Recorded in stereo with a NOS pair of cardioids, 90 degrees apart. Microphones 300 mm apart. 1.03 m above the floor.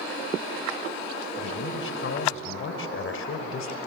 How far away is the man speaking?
About 5 m.